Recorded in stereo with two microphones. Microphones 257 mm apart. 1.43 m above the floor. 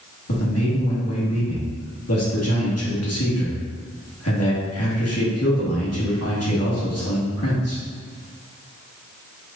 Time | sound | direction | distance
0.3 | a man speaking | 65° left (ahead or behind) | 1.6 m